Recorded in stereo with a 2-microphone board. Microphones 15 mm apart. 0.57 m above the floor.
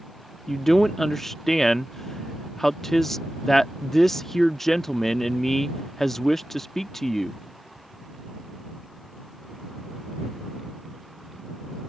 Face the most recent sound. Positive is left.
turn(degrees=25)  # may be behind; listen again after turning